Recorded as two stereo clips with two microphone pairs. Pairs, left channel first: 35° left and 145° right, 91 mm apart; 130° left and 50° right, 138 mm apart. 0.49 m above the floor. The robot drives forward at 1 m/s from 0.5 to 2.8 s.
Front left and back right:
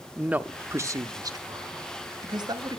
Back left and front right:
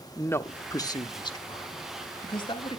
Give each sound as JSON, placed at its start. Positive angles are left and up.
{"t": 0.2, "sound": "a man speaking", "azimuth_deg": 175, "distance_m": 0.7}